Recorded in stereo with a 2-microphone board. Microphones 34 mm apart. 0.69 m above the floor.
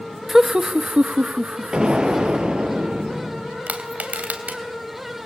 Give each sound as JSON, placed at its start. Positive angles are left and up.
{"t": 0.3, "sound": "laughter", "side_deg": -10, "distance_m": 1.0}
{"t": 1.7, "sound": "an explosion", "side_deg": -25, "distance_m": 7.5}
{"t": 3.7, "sound": "crushing", "side_deg": -50, "distance_m": 3.5}